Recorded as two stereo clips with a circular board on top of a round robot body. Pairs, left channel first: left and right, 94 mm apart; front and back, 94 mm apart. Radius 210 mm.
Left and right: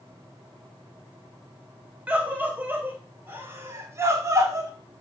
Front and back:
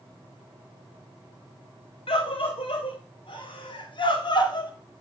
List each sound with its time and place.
2.1 s a scream: 15° right, 4 m; by 4.7 s 35° right, 3.5 m